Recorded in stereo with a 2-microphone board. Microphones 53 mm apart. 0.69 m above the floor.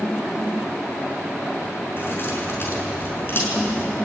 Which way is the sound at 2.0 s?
45° left (ahead or behind).